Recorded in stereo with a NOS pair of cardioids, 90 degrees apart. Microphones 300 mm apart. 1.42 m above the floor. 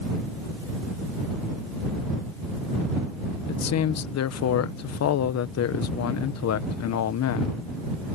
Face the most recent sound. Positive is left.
turn(degrees=60)